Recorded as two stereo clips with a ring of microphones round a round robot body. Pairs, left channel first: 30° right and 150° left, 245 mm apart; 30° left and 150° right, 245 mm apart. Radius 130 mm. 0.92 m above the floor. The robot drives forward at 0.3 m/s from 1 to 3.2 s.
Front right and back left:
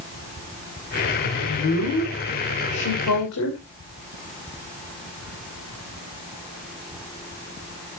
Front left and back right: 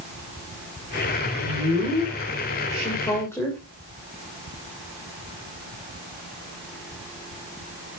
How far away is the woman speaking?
About 3.5 m.